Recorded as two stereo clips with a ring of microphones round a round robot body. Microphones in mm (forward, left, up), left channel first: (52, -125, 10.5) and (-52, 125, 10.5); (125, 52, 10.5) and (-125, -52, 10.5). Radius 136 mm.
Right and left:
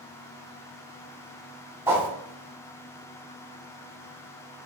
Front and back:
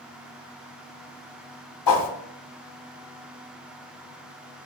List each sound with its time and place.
1.9 s a whoosh: 30° left, 0.6 m